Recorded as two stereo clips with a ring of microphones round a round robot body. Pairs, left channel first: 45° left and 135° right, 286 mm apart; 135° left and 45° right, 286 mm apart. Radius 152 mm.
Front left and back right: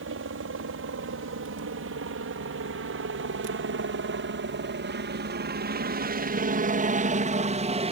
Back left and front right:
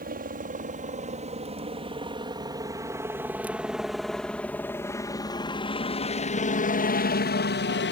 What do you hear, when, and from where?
0.0 s a helicopter: 100° right; by 7.9 s 165° left